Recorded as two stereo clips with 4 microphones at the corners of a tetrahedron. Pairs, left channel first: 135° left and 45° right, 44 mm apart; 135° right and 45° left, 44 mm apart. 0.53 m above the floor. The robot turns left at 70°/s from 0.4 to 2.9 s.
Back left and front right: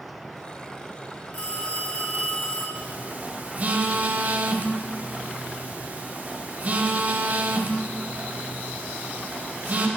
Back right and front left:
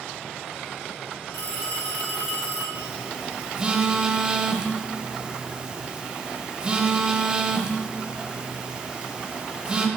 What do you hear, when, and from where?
1.3 s a phone ringing: 175° right, 2.5 m; by 2.6 s 95° left, 2.5 m
2.8 s a phone buzzing: 5° right, 0.5 m; by 9.9 s 15° right, 0.5 m